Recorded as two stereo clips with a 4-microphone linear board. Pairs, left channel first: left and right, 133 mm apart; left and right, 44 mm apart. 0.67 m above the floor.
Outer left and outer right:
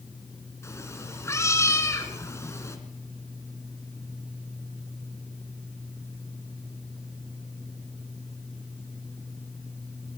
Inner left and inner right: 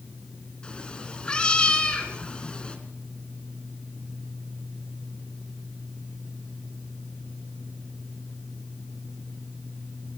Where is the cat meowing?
20° left (ahead or behind), 3 m.